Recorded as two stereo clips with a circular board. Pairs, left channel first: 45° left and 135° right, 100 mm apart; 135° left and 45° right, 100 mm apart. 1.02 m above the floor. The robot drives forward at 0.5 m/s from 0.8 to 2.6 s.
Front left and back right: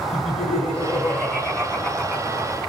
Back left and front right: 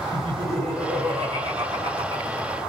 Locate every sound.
0.1 s laughter: 20° right, 1.3 m; by 2.6 s 60° right, 0.7 m